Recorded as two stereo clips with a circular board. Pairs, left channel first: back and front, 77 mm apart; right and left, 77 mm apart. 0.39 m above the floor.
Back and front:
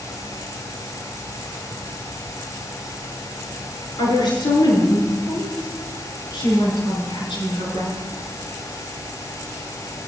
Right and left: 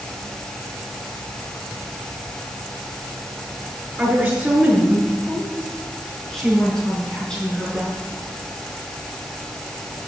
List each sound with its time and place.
4.0 s a woman speaking: 165° left, 6.5 m; by 8.0 s 165° right, 6 m